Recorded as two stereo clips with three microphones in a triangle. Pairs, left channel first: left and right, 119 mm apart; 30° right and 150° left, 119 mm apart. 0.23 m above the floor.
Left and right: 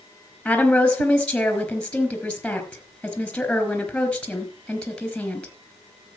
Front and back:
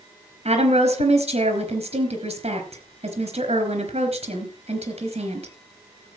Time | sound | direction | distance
0.5 | a woman speaking | 170° left | 4 m